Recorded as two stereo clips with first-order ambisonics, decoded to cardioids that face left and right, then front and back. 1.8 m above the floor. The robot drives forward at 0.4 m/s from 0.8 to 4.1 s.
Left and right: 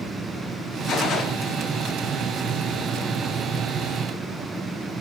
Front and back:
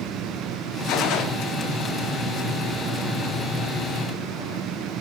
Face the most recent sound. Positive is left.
turn(degrees=95)